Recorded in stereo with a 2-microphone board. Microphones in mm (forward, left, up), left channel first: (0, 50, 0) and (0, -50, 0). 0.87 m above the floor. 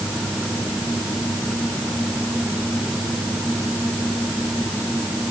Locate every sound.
Only background noise.